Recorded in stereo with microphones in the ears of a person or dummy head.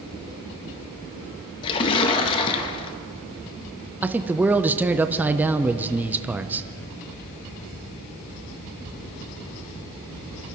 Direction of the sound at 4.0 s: 10° right (ahead or behind).